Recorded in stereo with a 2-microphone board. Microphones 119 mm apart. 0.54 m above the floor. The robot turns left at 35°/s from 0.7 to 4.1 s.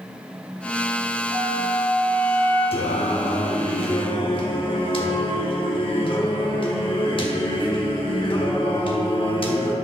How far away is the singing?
About 0.9 m.